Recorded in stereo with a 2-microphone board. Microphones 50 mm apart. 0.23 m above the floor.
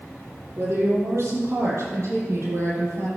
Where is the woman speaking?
65° right (ahead or behind), 7.5 m; by 3.1 s 70° right (ahead or behind), 8.5 m.